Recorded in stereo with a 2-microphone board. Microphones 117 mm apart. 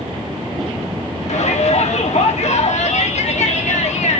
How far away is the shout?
About 1.5 m.